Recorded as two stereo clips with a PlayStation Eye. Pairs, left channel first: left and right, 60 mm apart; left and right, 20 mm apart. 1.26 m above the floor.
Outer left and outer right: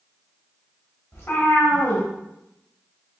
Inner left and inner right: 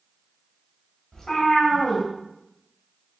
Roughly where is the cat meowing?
Left.